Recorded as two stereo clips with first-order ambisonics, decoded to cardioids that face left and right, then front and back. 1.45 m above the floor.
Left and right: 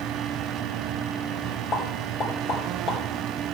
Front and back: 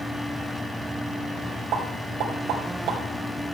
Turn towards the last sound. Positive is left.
turn(degrees=145)